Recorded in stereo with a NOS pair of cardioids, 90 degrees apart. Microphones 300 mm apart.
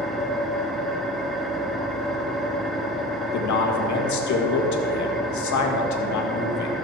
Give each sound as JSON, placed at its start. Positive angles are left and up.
{"t": 0.0, "sound": "an engine running", "azimuth_deg": 0, "distance_m": 1.6}
{"t": 3.3, "sound": "a man speaking", "azimuth_deg": 65, "distance_m": 1.8}